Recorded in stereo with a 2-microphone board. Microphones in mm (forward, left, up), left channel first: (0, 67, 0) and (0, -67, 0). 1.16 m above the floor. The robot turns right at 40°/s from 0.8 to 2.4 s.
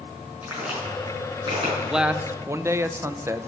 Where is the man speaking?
Centre (ahead or behind), 0.5 m; by 3.5 s 20° right (ahead or behind), 0.5 m.